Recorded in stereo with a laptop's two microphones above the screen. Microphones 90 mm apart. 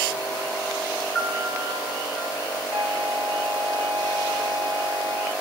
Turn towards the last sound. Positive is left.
turn(degrees=-20)  # may be behind; listen again after turning